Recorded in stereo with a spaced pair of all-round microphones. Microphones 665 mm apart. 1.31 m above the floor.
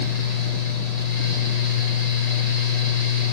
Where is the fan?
70° left (ahead or behind), 1.4 m.